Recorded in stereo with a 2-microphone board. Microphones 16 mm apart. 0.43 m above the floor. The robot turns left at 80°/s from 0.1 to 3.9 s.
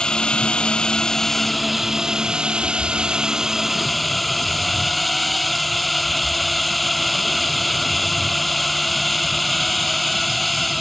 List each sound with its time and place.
0.0 s a drone: 120° left; by 10.8 s 175° left